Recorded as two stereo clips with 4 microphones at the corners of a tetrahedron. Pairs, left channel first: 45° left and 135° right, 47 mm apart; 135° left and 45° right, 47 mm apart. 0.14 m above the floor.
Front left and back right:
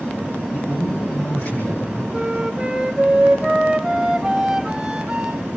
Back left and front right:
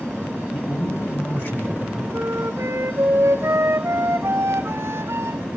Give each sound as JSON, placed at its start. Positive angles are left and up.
{"t": 0.5, "sound": "a man speaking", "azimuth_deg": 105, "distance_m": 7.5}
{"t": 2.1, "sound": "a flute", "azimuth_deg": -65, "distance_m": 1.3}